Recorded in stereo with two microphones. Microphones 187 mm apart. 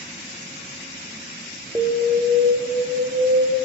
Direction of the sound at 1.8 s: 20° right (ahead or behind).